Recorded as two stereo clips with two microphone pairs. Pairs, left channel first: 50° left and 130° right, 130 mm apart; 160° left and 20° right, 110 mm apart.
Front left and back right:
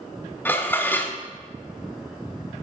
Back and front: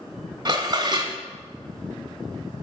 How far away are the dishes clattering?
About 1.0 m.